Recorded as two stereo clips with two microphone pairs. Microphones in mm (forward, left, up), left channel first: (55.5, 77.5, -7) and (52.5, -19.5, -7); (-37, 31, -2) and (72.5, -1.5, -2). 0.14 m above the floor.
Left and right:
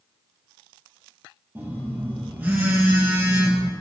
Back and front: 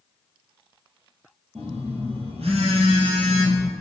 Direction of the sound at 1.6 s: 25° right.